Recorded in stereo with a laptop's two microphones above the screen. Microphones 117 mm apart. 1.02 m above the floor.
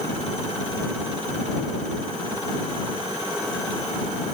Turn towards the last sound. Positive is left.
No sound to turn to.